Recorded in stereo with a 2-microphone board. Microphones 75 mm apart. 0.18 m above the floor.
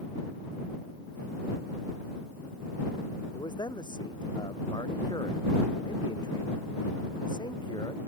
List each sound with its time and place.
3.4 s a man speaking: 75° left (ahead or behind)